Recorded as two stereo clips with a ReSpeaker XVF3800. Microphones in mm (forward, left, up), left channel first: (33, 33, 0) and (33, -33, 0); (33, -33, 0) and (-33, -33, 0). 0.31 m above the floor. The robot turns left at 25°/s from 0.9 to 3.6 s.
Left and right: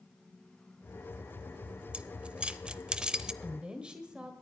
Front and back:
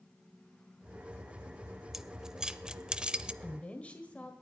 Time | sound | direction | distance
1.9 | keys jangling | 105° right | 0.6 m
3.4 | a woman speaking | 30° right | 1.6 m